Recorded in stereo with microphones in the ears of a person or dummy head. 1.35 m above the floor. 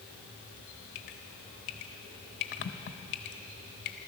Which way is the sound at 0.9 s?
50° left (ahead or behind).